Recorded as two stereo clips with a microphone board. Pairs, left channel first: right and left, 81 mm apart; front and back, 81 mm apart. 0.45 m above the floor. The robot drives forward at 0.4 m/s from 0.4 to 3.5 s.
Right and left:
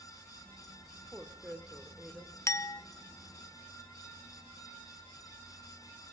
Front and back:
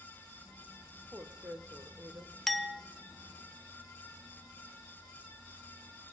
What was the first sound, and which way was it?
A woman speaking, 145° left.